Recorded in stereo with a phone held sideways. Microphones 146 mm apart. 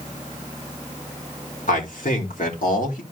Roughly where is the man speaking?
Left.